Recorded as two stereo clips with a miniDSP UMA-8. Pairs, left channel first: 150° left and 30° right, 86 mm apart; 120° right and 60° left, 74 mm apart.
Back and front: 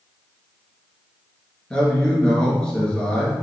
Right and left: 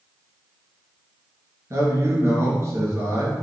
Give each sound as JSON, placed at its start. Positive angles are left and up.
{"t": 1.7, "sound": "a man speaking", "azimuth_deg": 75, "distance_m": 1.8}